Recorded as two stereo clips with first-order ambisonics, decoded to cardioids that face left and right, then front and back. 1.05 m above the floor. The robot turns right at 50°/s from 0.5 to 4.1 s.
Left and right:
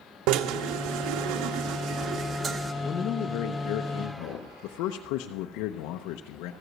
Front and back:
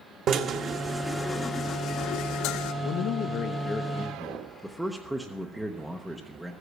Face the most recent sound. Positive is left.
turn(degrees=90)